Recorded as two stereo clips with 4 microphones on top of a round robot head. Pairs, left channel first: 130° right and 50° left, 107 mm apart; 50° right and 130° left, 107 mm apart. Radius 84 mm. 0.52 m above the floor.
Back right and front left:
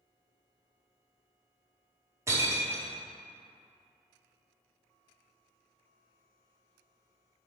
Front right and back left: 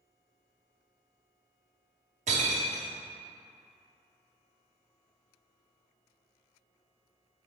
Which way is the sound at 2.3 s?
115° left.